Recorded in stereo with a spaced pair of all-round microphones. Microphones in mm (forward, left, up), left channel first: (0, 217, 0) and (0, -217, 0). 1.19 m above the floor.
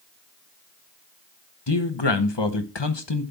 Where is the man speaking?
85° left, 1.1 m.